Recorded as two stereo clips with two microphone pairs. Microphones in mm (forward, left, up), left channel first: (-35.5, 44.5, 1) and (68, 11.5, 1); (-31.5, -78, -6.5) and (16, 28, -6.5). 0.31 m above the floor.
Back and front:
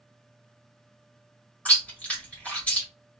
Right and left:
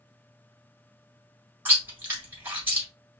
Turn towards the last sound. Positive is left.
turn(degrees=105)